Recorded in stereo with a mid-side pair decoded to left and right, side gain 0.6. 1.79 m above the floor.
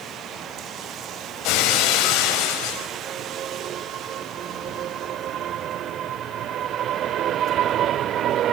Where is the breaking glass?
70° left, 6 m.